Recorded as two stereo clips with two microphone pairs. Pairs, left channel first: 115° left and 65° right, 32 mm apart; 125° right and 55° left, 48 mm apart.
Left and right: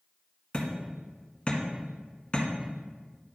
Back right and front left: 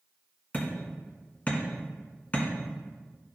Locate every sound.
0.5 s hammering: 175° left, 1.7 m